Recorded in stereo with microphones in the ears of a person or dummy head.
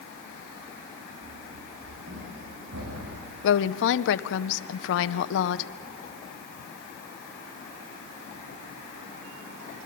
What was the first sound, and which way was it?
Running footsteps, 55° right (ahead or behind).